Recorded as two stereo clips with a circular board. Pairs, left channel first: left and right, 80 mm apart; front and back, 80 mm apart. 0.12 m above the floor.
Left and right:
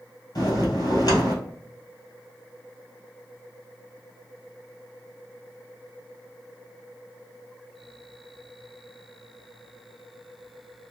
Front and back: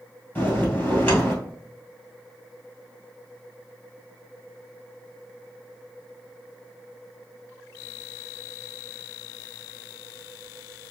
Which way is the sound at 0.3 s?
60° left.